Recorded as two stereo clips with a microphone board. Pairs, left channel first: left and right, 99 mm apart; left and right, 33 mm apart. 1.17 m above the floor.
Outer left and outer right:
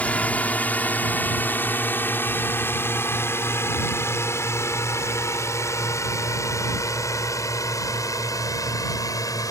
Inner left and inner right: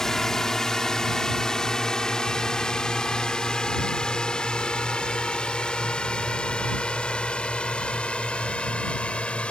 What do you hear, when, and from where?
0.0 s a drone: 10° left (ahead or behind); by 9.5 s 35° left (ahead or behind)